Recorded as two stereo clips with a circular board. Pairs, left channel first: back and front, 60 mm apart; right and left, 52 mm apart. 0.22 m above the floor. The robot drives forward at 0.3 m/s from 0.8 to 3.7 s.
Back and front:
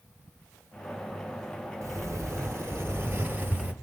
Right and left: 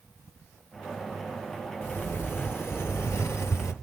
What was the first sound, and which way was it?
A sliding door, 40° right.